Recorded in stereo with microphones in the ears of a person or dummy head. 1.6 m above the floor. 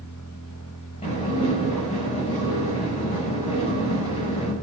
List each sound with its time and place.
0.0 s a machine running: 85° left, 2.5 m
1.0 s dishes clattering: 30° left (ahead or behind), 6 m